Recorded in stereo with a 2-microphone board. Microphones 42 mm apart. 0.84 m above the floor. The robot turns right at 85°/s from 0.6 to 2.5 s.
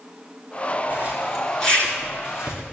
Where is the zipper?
45° right (ahead or behind), 3 m; by 2.6 s 80° left, 3 m.